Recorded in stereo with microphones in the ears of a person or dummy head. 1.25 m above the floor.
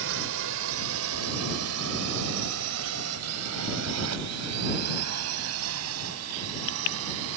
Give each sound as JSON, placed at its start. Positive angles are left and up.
{"t": 0.0, "sound": "a drone", "side_deg": -60}